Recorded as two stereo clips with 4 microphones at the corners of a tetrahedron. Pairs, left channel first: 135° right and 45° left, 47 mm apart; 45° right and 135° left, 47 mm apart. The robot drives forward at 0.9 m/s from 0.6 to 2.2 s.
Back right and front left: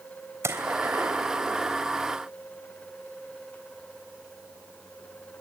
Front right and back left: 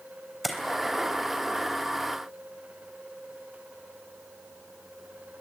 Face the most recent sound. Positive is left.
turn(degrees=70)